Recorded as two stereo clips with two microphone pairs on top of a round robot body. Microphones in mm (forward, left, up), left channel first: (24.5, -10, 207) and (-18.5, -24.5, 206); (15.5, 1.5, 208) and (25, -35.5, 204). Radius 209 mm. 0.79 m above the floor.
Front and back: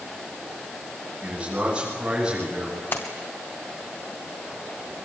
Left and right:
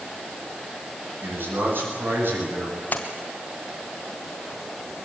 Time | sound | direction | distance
1.2 | a man speaking | 95° right | 10 m
2.9 | a splash | 60° left | 1.5 m